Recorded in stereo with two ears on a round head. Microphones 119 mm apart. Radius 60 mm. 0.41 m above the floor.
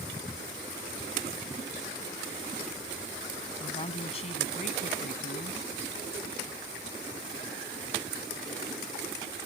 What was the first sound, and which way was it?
A woman speaking, 40° left (ahead or behind).